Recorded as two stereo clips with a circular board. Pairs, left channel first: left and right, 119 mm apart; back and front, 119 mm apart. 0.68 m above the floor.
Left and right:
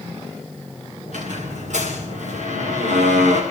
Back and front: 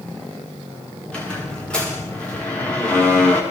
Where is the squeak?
100° right, 7.5 m.